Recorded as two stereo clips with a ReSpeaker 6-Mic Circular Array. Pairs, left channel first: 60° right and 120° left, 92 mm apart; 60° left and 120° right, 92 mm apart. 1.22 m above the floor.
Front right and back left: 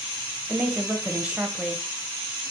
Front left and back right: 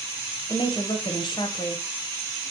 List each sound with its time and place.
0.5 s a woman speaking: 45° left, 0.9 m